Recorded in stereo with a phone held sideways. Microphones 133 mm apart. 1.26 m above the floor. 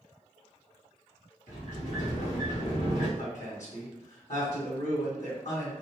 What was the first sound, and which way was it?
A sliding door, 70° left (ahead or behind).